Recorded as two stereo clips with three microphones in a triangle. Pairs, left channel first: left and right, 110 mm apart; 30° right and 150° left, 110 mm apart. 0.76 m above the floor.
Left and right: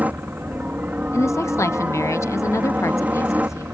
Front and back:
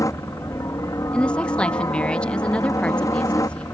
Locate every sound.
0.0 s a helicopter: 30° right
1.1 s a woman speaking: 45° left